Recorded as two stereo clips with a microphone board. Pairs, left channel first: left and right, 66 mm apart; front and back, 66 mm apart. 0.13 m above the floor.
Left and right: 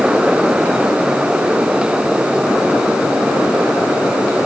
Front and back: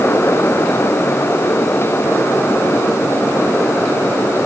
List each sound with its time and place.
Only background noise.